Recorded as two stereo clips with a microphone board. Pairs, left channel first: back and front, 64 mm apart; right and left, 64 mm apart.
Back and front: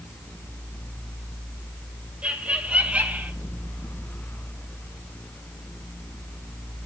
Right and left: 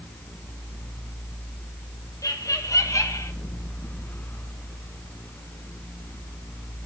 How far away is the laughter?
About 3.5 m.